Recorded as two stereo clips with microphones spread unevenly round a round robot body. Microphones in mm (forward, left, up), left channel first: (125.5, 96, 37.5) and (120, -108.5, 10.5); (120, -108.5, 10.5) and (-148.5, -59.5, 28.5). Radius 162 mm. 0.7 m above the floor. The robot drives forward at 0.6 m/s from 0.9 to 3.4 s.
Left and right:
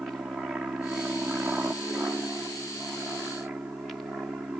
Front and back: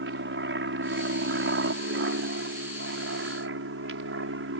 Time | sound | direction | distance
0.0 | an aircraft | 175° right | ?